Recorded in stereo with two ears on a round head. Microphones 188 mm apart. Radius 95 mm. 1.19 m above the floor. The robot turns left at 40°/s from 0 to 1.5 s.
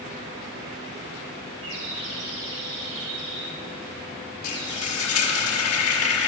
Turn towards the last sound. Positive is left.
turn(degrees=80)